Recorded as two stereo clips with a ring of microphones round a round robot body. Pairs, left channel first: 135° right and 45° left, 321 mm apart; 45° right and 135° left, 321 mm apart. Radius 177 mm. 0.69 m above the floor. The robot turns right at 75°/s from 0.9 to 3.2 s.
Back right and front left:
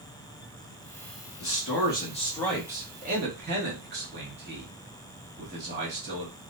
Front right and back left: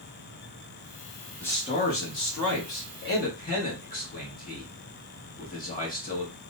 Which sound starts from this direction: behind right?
A man speaking, at 1.4 s.